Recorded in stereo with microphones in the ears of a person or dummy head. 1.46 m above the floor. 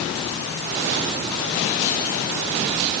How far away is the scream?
No scream in this recording.